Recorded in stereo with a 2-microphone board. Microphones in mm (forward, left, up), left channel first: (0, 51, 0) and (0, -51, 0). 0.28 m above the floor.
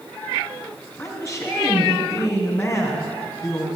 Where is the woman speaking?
30° left (ahead or behind), 2.5 m.